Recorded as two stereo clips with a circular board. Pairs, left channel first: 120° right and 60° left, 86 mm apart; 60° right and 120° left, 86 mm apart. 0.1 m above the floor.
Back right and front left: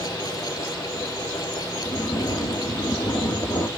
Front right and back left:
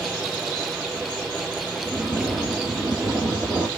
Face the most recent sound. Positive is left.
turn(degrees=-150)